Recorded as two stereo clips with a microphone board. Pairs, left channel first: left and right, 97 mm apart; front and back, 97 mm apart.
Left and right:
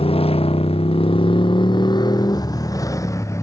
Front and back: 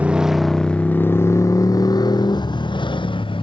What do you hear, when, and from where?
0.0 s a motorcycle: 105° left; by 3.4 s 30° left